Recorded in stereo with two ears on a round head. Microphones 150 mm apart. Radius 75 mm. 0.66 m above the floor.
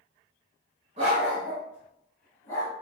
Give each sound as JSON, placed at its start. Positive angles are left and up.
{"t": 1.0, "sound": "a dog barking", "side_deg": -40, "distance_m": 1.1}